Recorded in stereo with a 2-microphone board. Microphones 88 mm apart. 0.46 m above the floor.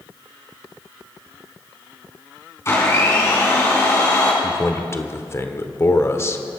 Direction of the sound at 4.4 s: 30° left (ahead or behind).